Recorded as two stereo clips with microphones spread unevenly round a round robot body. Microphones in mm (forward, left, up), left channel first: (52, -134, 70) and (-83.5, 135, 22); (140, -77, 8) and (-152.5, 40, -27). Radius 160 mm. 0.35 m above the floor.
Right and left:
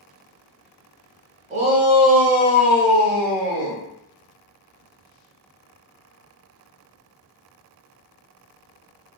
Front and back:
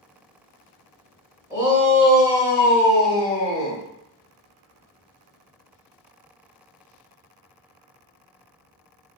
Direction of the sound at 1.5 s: 95° left.